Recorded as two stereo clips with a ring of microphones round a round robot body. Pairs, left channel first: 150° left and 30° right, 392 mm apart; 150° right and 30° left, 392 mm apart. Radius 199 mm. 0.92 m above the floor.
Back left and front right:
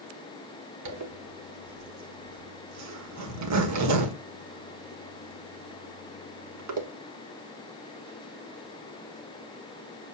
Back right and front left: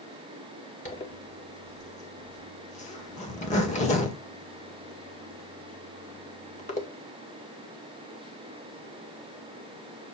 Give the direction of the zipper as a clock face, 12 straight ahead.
3 o'clock.